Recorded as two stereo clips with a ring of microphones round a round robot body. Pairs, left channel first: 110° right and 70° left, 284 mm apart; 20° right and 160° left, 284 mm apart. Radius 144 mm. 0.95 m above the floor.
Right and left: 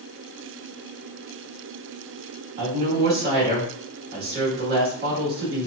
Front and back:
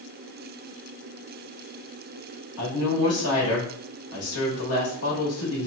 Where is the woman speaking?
10° left, 1.4 m.